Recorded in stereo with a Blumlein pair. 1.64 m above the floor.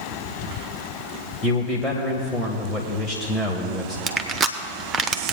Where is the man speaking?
10° left, 1.3 m.